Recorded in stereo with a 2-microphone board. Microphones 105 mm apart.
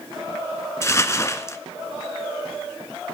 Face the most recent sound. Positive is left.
turn(degrees=25)  # may be behind; listen again after turning